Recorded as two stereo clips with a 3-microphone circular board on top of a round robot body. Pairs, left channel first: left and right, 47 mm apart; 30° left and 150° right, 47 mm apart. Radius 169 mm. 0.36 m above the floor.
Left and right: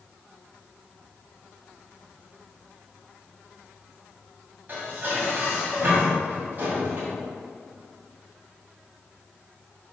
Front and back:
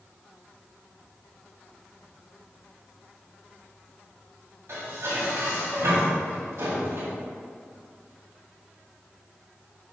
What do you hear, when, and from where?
4.7 s dishes clattering: 140° right, 2.5 m